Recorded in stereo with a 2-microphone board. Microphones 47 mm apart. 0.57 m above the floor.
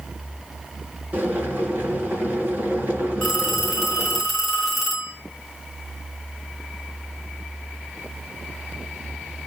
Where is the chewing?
No chewing in this recording.